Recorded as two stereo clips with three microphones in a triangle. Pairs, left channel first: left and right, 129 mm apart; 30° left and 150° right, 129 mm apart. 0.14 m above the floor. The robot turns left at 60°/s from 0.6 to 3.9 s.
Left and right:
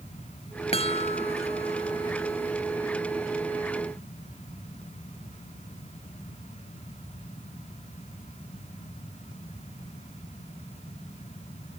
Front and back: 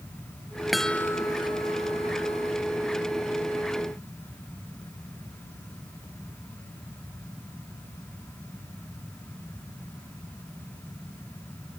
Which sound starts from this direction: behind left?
A chime, at 0.7 s.